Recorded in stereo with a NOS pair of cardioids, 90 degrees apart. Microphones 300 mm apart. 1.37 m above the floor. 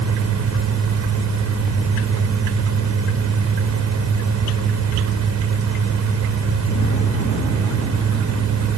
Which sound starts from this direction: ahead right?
A fan, at 0.0 s.